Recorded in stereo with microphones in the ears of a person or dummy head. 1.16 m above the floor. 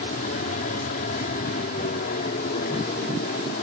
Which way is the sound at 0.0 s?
45° left (ahead or behind).